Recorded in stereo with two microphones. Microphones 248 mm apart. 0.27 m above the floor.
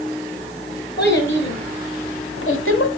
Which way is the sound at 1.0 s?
45° left (ahead or behind).